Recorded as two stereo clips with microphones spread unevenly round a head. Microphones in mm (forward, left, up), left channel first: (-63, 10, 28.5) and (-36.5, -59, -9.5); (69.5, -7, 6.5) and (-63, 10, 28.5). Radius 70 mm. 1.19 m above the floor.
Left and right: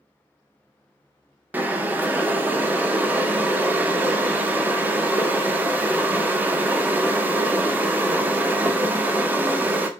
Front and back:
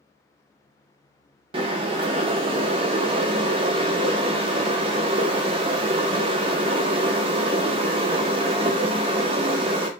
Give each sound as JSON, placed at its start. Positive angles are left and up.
{"t": 1.5, "sound": "boiling", "azimuth_deg": -155, "distance_m": 0.5}